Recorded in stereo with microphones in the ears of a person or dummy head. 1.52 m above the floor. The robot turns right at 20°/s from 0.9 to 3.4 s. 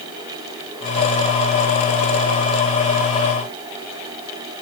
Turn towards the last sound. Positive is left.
No sound to turn to.